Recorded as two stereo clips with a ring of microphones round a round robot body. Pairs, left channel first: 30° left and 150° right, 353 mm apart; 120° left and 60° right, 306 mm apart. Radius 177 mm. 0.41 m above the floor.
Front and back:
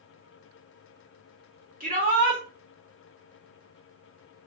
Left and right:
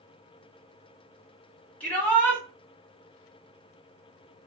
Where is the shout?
160° right, 1.3 m.